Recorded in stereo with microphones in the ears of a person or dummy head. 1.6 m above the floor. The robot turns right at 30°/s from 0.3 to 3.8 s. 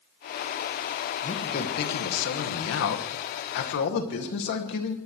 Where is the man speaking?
40° left, 2.5 m; by 5.0 s 120° left, 2.5 m.